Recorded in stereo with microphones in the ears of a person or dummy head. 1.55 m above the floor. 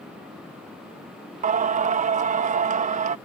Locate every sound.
1.4 s singing: 35° right (ahead or behind)